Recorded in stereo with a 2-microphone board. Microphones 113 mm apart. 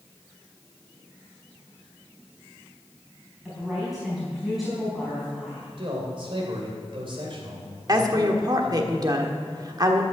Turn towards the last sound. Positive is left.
turn(degrees=-40)  # may be behind; listen again after turning